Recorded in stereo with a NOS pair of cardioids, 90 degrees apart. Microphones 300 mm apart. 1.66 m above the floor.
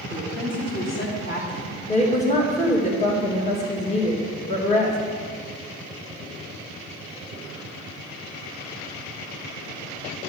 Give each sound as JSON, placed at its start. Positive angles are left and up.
{"t": 0.1, "sound": "a woman speaking", "azimuth_deg": 35, "distance_m": 3.5}
{"t": 1.9, "sound": "a woman speaking", "azimuth_deg": 25, "distance_m": 2.5}